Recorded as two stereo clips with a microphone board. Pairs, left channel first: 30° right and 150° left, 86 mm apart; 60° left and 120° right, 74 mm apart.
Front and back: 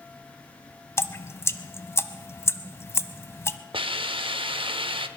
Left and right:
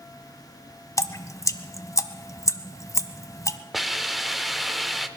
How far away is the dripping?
About 0.7 m.